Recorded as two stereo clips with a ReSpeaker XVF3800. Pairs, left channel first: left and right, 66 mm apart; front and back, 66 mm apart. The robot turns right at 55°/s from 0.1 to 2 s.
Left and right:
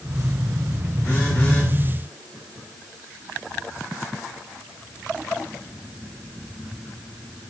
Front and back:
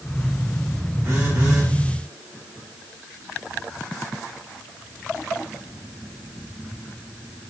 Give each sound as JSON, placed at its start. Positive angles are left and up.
{"t": 1.0, "sound": "a phone buzzing", "azimuth_deg": 135, "distance_m": 2.0}